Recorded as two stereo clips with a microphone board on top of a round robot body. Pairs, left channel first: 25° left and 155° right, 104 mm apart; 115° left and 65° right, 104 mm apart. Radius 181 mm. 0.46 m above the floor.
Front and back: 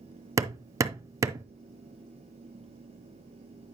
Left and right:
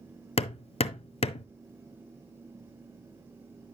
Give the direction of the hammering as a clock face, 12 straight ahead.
7 o'clock.